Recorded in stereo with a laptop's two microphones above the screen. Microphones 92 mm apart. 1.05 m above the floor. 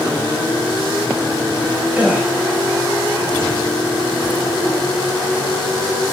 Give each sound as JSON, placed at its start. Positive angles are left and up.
{"t": 1.9, "sound": "a gasp", "side_deg": -15, "distance_m": 5.5}